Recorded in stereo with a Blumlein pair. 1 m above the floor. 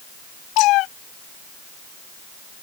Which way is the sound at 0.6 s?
40° left.